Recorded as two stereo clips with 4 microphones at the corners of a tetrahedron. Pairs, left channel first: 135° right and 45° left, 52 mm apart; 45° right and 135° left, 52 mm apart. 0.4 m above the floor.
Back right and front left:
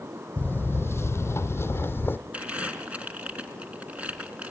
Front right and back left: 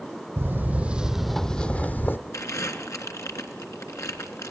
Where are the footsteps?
175° left, 0.8 m; by 2.2 s 90° right, 0.8 m.